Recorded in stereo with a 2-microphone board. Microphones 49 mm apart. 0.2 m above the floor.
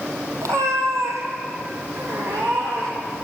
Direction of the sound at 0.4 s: 85° right.